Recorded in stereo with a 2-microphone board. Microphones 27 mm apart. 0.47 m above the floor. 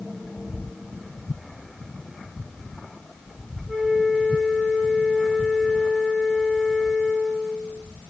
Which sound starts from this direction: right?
A flute, at 3.7 s.